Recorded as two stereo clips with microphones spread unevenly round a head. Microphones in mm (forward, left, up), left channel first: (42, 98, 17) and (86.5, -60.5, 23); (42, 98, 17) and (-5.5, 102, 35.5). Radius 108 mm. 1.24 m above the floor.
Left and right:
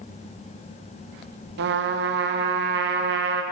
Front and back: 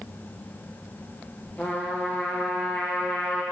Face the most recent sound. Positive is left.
turn(degrees=-65)